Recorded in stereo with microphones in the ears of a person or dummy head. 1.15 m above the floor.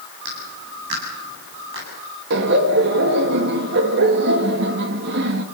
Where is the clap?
60° right (ahead or behind), 9 m.